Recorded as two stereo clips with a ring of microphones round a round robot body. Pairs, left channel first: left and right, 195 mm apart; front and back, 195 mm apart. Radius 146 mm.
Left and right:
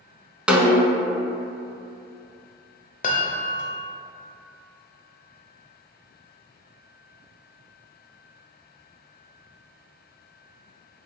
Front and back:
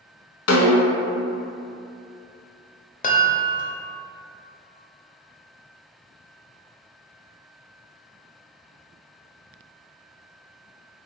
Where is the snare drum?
5° right, 0.6 m.